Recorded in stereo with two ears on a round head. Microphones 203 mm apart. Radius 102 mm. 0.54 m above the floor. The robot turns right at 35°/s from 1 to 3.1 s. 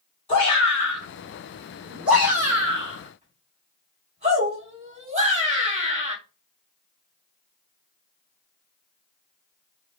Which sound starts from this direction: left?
A shout, at 0.3 s.